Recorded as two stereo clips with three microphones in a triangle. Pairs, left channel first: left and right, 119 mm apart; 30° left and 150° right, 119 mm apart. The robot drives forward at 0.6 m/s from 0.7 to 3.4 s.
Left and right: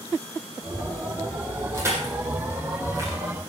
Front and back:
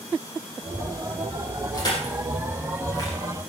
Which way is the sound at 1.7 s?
25° right.